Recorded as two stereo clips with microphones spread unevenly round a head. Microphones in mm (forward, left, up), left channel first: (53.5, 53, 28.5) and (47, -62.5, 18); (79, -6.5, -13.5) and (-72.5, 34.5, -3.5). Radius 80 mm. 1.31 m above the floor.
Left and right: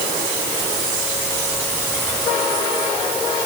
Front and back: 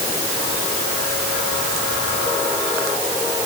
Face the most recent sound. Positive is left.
No sound to turn to.